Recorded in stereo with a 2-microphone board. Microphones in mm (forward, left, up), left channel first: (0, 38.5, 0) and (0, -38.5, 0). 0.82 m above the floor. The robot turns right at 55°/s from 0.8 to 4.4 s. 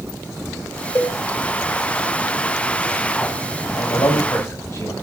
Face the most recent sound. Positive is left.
turn(degrees=135)